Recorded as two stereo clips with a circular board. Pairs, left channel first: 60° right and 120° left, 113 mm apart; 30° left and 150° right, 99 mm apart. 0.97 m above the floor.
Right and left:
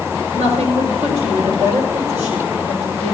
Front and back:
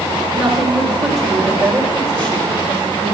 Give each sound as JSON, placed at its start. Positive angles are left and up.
{"t": 0.3, "sound": "a woman speaking", "azimuth_deg": 125, "distance_m": 4.0}